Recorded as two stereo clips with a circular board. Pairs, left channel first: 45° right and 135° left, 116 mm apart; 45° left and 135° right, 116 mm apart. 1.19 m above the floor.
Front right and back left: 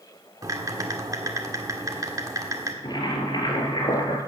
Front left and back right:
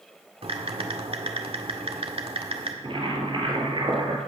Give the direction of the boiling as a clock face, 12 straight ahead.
3 o'clock.